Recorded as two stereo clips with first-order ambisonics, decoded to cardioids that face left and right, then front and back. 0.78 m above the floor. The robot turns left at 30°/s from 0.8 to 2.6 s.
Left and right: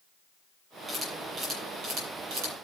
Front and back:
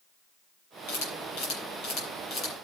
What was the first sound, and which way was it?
A camera shutter, 10° right.